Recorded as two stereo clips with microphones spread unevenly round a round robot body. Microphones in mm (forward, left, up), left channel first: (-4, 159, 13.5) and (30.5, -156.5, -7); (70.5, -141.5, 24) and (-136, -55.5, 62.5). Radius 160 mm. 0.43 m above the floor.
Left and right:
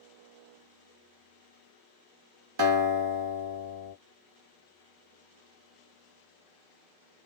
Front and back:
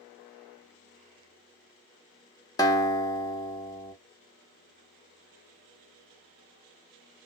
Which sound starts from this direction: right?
A guitar, at 2.6 s.